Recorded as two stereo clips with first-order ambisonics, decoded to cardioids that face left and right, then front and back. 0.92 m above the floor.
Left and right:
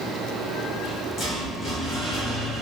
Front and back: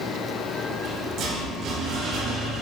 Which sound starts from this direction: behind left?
A rattle, at 0.7 s.